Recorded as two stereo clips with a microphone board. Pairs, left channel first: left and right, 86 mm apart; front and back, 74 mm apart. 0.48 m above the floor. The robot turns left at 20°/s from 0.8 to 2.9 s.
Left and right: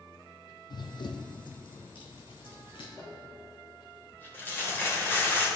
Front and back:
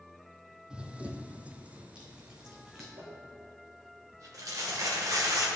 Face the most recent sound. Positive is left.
turn(degrees=155)